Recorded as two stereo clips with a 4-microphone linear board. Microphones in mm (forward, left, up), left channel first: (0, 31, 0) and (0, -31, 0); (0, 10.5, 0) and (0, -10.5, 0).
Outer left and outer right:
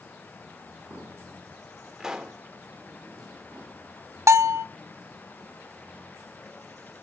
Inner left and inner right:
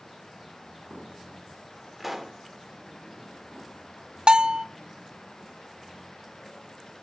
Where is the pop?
10° right (ahead or behind), 1.2 m.